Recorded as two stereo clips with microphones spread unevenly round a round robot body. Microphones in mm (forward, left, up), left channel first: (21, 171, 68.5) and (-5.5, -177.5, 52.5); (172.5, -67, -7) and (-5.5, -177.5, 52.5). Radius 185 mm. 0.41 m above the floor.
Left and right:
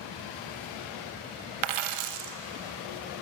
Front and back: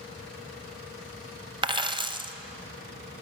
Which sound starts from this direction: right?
A dropped coin, at 1.6 s.